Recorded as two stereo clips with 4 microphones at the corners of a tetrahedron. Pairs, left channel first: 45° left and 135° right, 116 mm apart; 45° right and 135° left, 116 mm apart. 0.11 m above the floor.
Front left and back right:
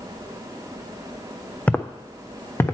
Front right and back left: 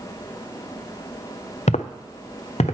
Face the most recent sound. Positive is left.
turn(degrees=-20)